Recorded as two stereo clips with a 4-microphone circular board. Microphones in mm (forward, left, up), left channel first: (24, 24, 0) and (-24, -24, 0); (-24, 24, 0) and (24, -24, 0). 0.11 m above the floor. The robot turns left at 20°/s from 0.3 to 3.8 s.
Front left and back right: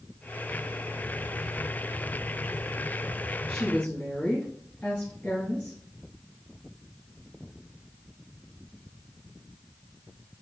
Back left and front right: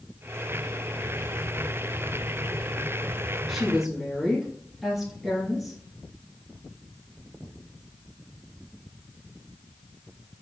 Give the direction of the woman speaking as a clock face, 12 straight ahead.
11 o'clock.